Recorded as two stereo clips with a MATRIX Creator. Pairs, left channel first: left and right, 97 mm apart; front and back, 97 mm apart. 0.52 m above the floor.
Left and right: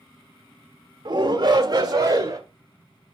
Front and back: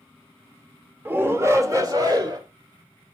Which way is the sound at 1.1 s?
115° right.